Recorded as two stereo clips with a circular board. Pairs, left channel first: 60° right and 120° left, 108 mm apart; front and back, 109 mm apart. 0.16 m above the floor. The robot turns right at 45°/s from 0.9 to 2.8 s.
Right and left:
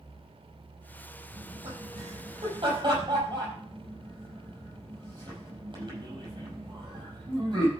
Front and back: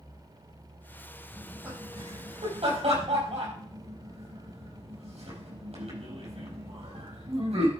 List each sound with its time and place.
1.3 s laughter: 100° left, 5 m; by 7.7 s 165° left, 5 m